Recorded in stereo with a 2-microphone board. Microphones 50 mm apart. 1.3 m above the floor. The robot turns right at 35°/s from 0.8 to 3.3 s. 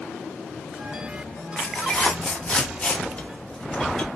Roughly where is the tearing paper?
Centre.